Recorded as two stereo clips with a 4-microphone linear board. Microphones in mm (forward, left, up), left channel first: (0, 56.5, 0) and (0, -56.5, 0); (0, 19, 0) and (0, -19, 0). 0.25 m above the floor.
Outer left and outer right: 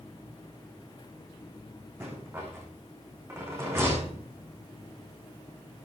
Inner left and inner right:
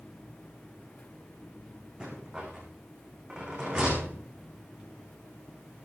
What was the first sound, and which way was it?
A rattle, 20° right (ahead or behind).